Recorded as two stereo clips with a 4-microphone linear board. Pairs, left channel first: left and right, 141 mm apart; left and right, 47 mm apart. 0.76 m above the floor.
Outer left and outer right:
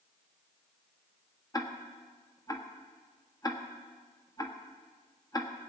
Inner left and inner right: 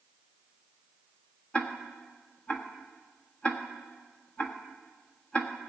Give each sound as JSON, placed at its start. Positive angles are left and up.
{"t": 1.5, "sound": "ticking", "side_deg": 25, "distance_m": 1.3}